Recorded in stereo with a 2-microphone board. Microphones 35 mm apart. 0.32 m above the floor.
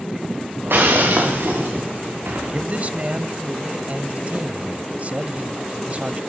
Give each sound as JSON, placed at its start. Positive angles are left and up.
{"t": 0.6, "sound": "breaking glass", "side_deg": -90, "distance_m": 8.5}
{"t": 2.5, "sound": "a man speaking", "side_deg": -45, "distance_m": 1.5}